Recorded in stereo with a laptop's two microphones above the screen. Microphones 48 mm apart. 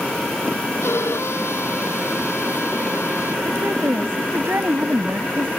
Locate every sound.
0.8 s a violin: 75° left (ahead or behind)
3.5 s a woman speaking: 55° right (ahead or behind)